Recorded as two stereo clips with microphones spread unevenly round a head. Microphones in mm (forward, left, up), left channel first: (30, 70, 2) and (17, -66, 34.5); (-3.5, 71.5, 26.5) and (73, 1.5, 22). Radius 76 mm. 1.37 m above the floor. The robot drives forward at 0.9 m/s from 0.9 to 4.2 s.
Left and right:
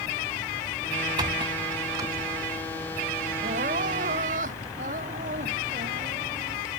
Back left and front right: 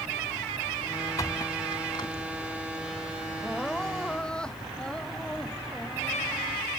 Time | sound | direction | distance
1.2 | a squeak | 155° right | ?
3.4 | crying | 135° right | ?